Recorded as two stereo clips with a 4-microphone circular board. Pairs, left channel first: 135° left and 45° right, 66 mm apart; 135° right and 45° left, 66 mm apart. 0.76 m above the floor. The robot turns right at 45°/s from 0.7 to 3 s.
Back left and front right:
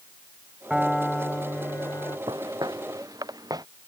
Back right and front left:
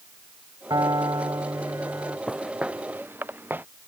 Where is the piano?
35° left; by 2.2 s 100° left.